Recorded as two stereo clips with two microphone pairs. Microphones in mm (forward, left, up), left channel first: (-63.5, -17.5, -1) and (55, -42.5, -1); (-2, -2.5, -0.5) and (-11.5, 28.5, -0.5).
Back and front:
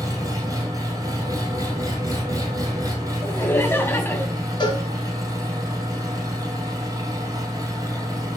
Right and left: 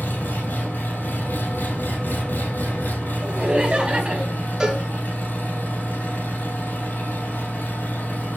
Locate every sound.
0.0 s an engine running: 75° right, 2.5 m
3.2 s laughter: 115° left, 1.2 m
4.6 s a cowbell: 165° left, 1.2 m